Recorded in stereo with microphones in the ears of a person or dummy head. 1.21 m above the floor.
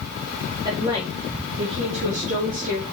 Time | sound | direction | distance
0.7 | a woman speaking | 25° right (ahead or behind) | 3 m